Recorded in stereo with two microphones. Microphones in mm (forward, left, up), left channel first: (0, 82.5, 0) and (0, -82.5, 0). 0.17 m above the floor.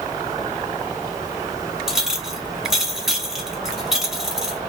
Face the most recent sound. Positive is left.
turn(degrees=-5)  # may be behind; listen again after turning